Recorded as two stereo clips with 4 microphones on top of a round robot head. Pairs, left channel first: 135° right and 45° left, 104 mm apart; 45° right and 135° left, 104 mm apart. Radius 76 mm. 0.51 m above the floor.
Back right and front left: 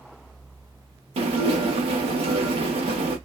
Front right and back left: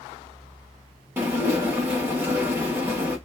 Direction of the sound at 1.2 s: 70° left.